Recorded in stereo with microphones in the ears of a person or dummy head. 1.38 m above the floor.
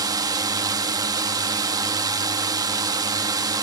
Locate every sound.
0.0 s a drone: 25° right (ahead or behind)